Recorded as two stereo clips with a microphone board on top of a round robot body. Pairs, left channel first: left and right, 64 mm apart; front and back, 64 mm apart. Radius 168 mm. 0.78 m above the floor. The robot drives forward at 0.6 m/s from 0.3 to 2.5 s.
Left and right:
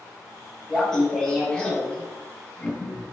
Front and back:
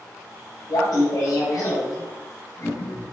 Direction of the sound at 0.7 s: 10° left.